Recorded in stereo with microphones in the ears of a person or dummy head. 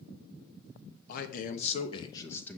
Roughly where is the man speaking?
Left.